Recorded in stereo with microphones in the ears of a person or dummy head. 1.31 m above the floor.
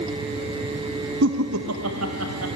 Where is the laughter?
65° right (ahead or behind), 0.6 m; by 2.5 s 85° right, 1.9 m.